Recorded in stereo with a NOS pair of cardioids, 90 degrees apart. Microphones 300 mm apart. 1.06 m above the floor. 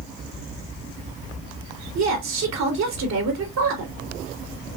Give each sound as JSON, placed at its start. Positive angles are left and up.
{"t": 1.9, "sound": "a woman speaking", "azimuth_deg": -65, "distance_m": 3.0}